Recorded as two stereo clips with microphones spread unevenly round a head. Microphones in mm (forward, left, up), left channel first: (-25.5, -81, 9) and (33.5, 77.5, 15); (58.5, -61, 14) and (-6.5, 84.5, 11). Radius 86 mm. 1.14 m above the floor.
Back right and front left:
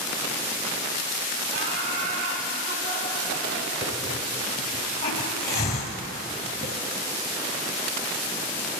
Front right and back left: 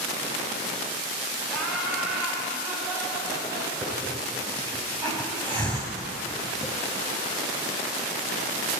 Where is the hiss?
140° right, 1.2 m.